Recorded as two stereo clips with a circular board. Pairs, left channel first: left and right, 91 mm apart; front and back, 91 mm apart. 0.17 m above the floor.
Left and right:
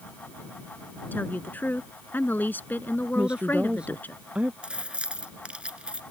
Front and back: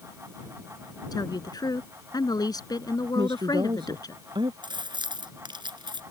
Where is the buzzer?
I don't hear a buzzer.